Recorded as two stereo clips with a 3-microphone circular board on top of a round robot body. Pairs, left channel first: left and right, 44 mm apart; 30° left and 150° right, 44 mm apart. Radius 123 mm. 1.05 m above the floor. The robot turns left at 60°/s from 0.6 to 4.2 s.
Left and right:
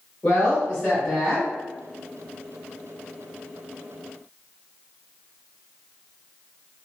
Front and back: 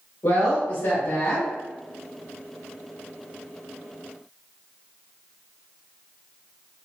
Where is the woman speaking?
35° left, 1.6 m; by 1.5 s 20° right, 1.6 m.